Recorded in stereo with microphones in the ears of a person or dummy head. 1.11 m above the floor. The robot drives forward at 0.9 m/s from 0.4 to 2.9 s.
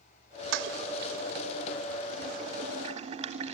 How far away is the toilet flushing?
About 1.7 m.